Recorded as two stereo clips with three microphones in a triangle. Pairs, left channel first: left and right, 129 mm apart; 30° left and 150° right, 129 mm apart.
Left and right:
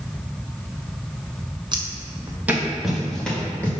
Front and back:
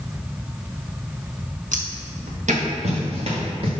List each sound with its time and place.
1.7 s footsteps: 145° right, 1.8 m; by 3.7 s 170° left, 3 m